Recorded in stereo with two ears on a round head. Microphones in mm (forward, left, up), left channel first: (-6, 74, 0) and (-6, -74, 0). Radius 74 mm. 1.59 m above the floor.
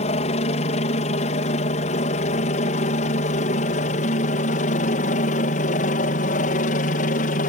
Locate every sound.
0.0 s a helicopter: 40° left (ahead or behind); by 7.5 s 50° left (ahead or behind)